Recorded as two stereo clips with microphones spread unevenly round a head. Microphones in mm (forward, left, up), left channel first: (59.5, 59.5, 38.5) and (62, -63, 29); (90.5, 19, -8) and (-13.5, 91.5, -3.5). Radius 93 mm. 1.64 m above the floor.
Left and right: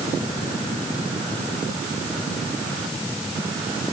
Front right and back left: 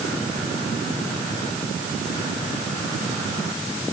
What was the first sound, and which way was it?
Only background noise.